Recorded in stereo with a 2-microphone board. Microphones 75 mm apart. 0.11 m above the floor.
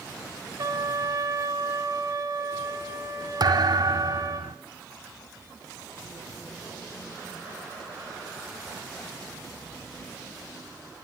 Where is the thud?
65° right (ahead or behind), 1.2 m.